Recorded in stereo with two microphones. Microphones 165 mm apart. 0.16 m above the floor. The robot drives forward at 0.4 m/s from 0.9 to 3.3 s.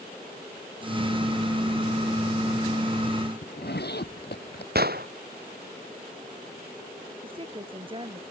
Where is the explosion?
70° right (ahead or behind).